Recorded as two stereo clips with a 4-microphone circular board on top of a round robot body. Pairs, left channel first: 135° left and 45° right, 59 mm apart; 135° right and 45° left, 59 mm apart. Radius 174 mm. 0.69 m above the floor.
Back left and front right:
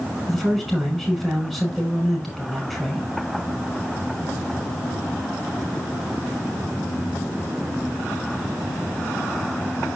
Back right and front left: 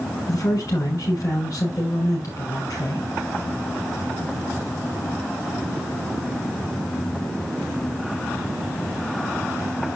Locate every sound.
0.3 s a man speaking: 135° right, 6 m